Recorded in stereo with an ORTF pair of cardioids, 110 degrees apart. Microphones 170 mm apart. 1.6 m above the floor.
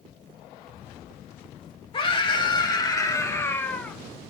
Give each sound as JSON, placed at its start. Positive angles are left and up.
{"t": 1.9, "sound": "a scream", "azimuth_deg": 30, "distance_m": 2.5}